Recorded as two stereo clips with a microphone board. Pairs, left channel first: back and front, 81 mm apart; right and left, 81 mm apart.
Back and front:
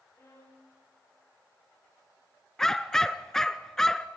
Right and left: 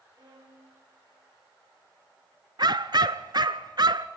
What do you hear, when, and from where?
0.1 s a violin: 125° left, 8.5 m
2.6 s a dog barking: 95° left, 0.7 m